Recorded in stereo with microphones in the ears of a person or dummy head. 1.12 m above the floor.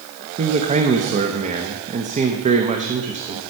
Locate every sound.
0.4 s a man speaking: 35° right (ahead or behind), 0.9 m